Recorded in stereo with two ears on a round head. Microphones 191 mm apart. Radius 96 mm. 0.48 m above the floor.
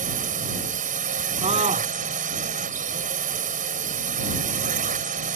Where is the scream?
25° right (ahead or behind).